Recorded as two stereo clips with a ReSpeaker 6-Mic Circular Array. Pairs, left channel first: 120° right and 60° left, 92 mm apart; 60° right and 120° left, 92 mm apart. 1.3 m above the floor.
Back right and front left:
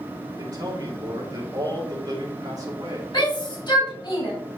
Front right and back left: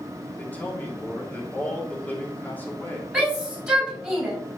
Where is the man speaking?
10° left, 2.5 m.